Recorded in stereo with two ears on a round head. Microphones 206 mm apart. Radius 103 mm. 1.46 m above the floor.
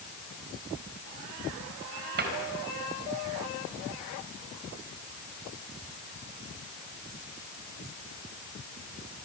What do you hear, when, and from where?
2.2 s a cupboard door: 45° right (ahead or behind), 4 m